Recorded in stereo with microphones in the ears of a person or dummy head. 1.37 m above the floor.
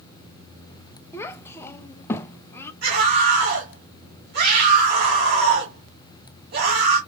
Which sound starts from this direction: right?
A scream, at 2.8 s.